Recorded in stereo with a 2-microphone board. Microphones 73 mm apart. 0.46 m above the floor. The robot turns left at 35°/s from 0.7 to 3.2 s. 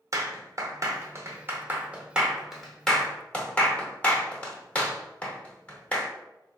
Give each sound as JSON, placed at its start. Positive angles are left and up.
{"t": 0.1, "sound": "a clap", "side_deg": -45, "distance_m": 0.7}